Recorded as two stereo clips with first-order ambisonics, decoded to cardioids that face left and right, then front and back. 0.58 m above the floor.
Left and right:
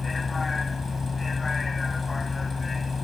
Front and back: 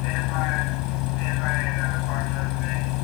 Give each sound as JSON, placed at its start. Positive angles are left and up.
{"t": 0.0, "sound": "a vehicle", "azimuth_deg": 15}